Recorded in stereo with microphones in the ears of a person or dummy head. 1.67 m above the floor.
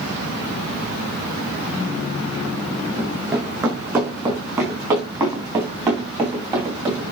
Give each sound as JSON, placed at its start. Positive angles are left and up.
{"t": 3.0, "sound": "running footsteps", "side_deg": -10, "distance_m": 5.0}